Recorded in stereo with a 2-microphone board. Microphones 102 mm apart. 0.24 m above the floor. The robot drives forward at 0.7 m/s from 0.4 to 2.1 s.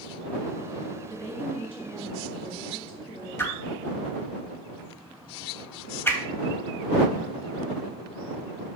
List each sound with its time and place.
1.1 s a woman speaking: 20° left (ahead or behind), 2.5 m; by 3.3 s 15° left (ahead or behind), 3 m
3.4 s a whoosh: 20° left (ahead or behind), 0.7 m